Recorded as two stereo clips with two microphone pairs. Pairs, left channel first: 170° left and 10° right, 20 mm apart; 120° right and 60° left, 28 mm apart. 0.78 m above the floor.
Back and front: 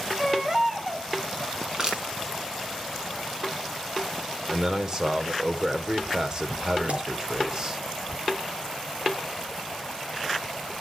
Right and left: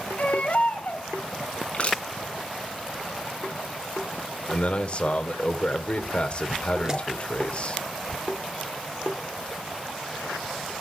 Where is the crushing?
70° right, 6 m.